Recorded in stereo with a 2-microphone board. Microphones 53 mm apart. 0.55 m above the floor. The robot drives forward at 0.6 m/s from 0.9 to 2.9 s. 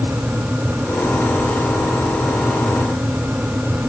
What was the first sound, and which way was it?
Only background noise.